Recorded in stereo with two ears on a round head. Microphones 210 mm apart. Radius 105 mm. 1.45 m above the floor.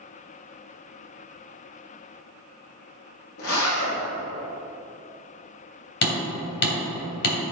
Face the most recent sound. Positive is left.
turn(degrees=50)  # may be behind; listen again after turning